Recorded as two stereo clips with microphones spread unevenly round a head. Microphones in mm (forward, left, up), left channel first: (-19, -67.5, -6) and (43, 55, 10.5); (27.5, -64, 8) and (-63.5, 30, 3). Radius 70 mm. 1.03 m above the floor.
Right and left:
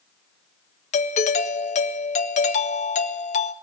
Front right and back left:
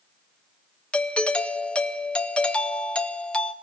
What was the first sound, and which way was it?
A doorbell, 130° right.